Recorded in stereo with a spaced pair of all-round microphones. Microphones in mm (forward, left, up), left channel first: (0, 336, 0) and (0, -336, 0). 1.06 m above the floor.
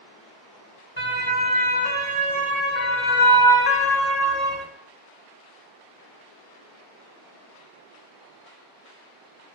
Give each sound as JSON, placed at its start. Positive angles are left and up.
{"t": 1.0, "sound": "a siren", "side_deg": 50, "distance_m": 4.5}